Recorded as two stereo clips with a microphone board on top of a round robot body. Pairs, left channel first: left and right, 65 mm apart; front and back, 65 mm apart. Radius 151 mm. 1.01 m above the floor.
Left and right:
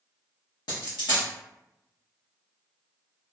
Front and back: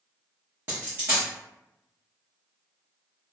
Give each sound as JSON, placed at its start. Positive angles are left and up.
{"t": 0.7, "sound": "a dropped coin", "azimuth_deg": 115, "distance_m": 0.7}